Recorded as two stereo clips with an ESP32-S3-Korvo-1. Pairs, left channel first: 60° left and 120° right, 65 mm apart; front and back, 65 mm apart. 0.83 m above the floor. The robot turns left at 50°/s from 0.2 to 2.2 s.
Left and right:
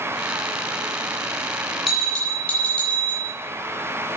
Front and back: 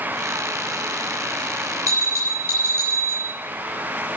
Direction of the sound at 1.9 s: 150° left.